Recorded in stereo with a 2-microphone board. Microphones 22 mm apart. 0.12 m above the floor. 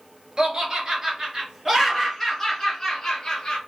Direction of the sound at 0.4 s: 45° right (ahead or behind).